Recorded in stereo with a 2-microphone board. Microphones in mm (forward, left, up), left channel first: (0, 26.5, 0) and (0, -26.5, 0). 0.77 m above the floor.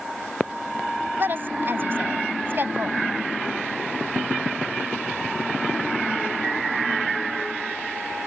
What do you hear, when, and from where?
1.2 s a woman speaking: 45° right (ahead or behind)